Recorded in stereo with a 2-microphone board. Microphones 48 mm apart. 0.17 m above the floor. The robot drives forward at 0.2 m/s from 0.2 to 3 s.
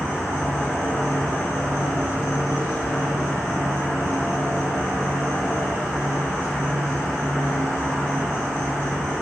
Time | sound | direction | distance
0.0 | an insect | 60° left (ahead or behind) | 1.2 m